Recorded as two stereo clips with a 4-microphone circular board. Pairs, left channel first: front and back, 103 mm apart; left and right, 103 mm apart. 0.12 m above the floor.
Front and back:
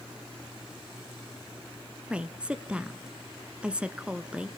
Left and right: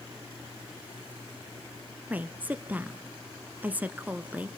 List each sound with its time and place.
2.1 s a woman speaking: 125° right, 1.1 m